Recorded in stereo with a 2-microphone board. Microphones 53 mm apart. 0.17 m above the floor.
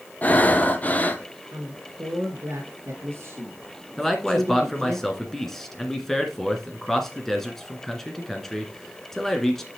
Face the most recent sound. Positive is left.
turn(degrees=5)  # may be behind; listen again after turning